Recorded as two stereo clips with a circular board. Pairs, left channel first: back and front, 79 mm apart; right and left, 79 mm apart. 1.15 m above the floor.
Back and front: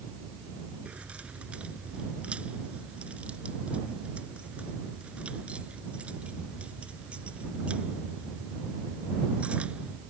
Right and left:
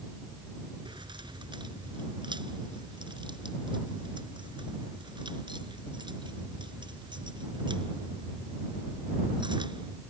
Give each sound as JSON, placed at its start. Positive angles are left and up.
{"t": 0.8, "sound": "keys jangling", "azimuth_deg": 75}